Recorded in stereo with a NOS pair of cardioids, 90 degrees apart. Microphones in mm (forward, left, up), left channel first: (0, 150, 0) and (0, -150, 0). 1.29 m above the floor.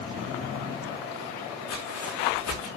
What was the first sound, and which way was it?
Footsteps, 65° left.